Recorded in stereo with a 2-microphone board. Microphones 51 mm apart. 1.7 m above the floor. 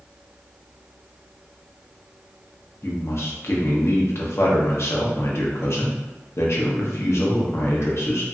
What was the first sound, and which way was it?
A man speaking, 55° left (ahead or behind).